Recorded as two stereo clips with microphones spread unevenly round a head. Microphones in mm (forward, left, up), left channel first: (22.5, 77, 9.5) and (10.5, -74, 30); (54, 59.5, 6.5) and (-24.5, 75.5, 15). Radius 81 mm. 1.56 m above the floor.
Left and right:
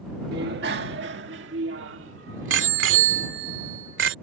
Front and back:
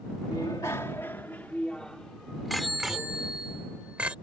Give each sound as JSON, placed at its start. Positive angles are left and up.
{"t": 0.3, "sound": "a bicycle bell", "azimuth_deg": -80}